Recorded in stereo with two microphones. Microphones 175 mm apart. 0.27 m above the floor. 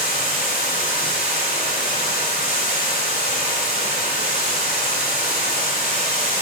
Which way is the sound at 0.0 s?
55° left (ahead or behind).